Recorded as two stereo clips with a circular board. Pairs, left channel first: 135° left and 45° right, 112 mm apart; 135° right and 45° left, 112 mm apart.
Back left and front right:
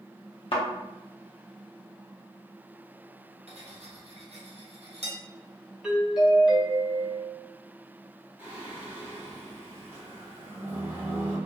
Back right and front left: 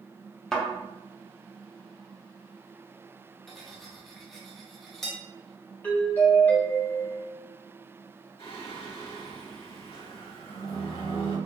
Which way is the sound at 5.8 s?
115° right.